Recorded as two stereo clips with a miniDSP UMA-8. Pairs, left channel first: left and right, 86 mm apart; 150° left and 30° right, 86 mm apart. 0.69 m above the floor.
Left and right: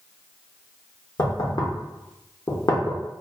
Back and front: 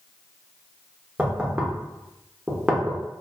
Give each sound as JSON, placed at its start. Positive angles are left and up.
{"t": 1.2, "sound": "knocking", "azimuth_deg": 50, "distance_m": 0.5}